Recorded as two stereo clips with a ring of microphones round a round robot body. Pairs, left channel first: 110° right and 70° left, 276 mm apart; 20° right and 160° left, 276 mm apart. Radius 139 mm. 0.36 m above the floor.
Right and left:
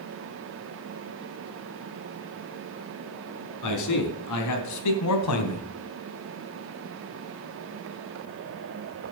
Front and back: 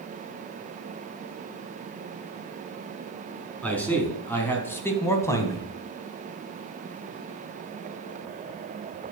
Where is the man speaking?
105° right, 3.5 m; by 5.7 s 100° right, 2.5 m.